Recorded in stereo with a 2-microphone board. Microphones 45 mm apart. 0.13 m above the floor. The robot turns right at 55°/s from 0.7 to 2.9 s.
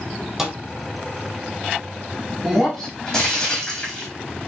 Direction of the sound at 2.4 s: 5° right (ahead or behind).